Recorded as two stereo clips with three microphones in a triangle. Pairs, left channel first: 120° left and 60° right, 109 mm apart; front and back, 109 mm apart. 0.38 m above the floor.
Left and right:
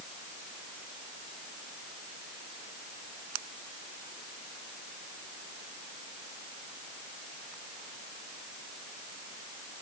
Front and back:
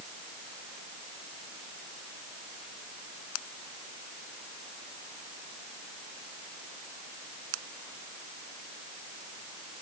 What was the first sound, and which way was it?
Only background noise.